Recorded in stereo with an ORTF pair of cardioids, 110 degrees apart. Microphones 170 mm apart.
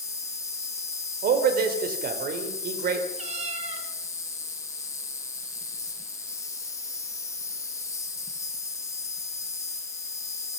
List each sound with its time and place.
0.0 s an insect: 20° left, 3 m
1.2 s a man speaking: 60° right, 4.5 m
3.2 s a cat meowing: 40° right, 5.5 m